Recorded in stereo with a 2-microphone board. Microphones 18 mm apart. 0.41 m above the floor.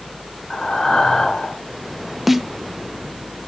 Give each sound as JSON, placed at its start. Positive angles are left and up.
{"t": 0.5, "sound": "breathing", "side_deg": 55, "distance_m": 2.5}
{"t": 2.3, "sound": "a snare drum", "side_deg": -10, "distance_m": 0.7}